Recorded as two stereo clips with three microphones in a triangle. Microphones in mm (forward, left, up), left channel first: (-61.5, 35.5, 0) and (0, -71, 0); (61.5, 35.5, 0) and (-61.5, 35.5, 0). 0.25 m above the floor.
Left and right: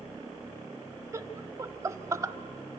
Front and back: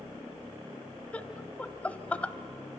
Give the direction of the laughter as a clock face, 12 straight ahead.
2 o'clock.